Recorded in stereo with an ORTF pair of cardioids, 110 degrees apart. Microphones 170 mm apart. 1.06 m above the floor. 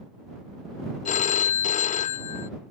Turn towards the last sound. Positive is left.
turn(degrees=50)